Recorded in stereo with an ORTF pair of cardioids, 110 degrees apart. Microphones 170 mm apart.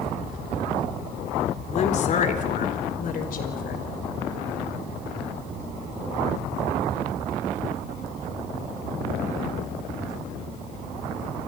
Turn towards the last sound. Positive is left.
turn(degrees=55)